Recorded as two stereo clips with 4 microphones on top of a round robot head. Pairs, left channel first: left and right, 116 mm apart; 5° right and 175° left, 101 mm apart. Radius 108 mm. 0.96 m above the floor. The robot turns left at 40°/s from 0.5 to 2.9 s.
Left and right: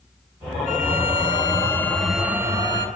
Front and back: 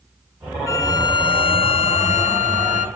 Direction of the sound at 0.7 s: 55° left.